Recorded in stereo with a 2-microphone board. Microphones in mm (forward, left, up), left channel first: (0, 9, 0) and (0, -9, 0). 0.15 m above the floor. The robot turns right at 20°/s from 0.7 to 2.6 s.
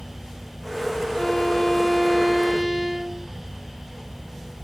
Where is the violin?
5° left (ahead or behind), 3.5 m; by 3.3 s 25° right (ahead or behind), 3.5 m.